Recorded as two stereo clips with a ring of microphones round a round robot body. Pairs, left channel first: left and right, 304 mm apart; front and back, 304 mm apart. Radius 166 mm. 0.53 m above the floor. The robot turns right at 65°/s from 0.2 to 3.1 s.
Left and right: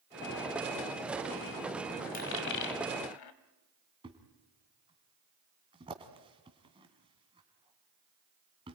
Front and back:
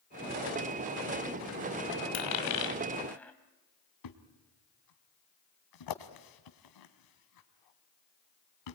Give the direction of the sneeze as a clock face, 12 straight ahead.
I don't hear a sneeze.